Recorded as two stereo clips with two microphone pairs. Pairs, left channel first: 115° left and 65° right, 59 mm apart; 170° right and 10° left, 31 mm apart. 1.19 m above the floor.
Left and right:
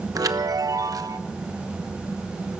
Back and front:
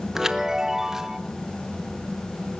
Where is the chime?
65° right, 0.8 m.